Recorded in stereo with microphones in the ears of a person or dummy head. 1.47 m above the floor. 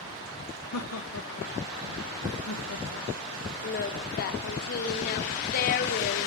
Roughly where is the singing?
Left.